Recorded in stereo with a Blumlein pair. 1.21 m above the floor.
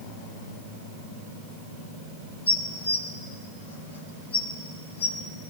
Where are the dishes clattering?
65° left, 1.4 m.